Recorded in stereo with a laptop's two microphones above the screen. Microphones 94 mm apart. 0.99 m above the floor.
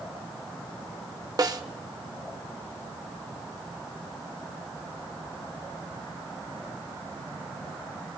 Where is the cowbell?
No cowbell in this recording.